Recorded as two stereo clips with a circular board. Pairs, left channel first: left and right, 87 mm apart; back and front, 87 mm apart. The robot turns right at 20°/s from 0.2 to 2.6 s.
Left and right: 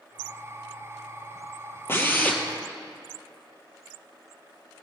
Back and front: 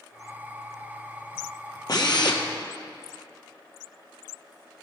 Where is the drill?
150° left, 1.4 m; by 2.4 s 160° left, 1.4 m.